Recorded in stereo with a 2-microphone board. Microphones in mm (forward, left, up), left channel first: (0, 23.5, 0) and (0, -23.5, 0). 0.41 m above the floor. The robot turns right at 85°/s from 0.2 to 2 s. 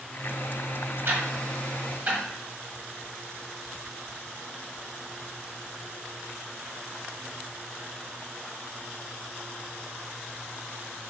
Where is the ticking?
55° right (ahead or behind), 1.4 m; by 2.2 s 35° right (ahead or behind), 1.4 m.